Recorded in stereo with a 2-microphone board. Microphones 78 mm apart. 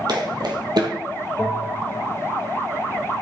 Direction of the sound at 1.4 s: 5° right (ahead or behind).